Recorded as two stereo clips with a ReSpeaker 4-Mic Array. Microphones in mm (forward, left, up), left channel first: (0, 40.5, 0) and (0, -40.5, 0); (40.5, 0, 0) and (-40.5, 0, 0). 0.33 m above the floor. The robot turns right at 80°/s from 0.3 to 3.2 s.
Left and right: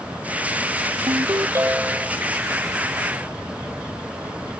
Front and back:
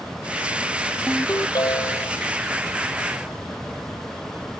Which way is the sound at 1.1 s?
75° right.